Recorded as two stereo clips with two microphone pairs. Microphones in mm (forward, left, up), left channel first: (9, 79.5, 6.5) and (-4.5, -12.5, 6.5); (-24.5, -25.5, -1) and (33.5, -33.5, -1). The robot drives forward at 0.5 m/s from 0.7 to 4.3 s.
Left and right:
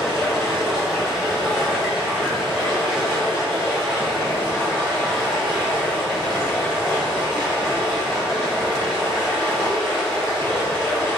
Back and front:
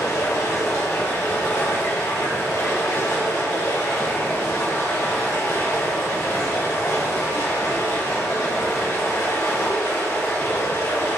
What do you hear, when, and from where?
0.0 s running water: 175° left, 3.5 m